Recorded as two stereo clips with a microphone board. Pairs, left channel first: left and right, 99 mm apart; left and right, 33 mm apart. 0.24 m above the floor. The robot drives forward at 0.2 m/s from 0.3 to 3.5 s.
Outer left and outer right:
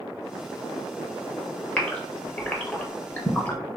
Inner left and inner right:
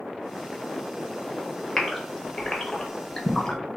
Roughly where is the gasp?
Centre.